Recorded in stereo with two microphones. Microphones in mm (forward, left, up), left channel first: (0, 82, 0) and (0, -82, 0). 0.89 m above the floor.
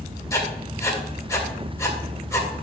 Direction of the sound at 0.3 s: 20° left (ahead or behind).